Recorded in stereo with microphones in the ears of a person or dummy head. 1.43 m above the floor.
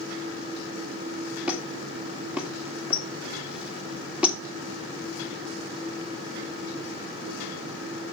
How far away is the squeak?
About 1.8 m.